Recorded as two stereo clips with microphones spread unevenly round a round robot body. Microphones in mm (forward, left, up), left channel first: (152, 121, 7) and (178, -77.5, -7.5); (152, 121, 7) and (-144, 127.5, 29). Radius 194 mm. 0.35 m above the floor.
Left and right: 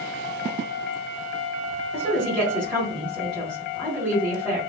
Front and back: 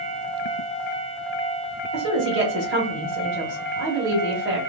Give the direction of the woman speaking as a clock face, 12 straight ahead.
6 o'clock.